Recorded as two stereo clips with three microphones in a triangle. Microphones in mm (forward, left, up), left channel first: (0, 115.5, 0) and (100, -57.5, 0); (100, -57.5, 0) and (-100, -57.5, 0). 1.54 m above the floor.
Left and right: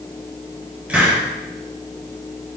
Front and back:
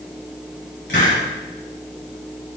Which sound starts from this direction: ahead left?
A hiss, at 0.9 s.